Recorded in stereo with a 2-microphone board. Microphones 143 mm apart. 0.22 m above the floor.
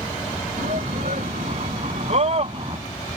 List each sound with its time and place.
0.6 s a shout: 65° right (ahead or behind); by 2.8 s 40° right (ahead or behind)